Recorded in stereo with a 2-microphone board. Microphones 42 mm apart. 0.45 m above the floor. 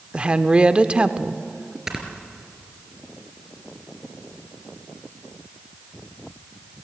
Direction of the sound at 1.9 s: 15° right (ahead or behind).